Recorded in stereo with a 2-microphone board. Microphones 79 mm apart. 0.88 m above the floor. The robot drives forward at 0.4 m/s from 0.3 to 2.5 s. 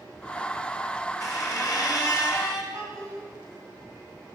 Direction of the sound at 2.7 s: 40° right (ahead or behind).